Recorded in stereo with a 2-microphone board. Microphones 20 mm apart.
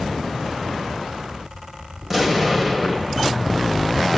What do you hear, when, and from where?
2.0 s an explosion: 20° right (ahead or behind), 2.5 m